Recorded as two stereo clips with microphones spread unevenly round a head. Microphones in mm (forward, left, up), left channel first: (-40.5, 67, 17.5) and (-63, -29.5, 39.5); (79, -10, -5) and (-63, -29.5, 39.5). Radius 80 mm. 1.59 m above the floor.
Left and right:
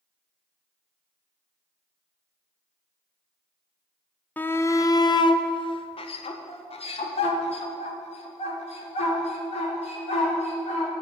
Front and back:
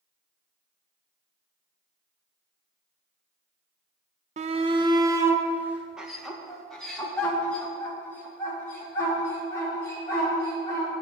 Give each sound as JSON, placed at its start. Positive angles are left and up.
{"t": 4.4, "sound": "a shout", "azimuth_deg": 155, "distance_m": 0.8}